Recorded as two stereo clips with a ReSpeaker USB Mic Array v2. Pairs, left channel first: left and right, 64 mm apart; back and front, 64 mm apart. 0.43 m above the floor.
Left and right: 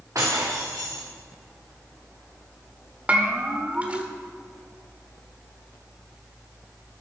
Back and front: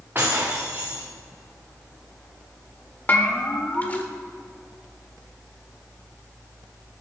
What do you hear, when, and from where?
0.1 s breaking glass: 55° right, 4 m
3.1 s a bell: 140° right, 1.5 m